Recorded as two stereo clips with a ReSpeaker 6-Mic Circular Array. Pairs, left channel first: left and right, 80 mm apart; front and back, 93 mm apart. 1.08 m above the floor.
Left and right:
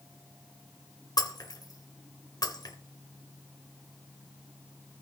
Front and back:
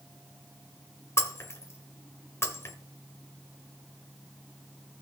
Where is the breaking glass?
60° left, 1.6 m.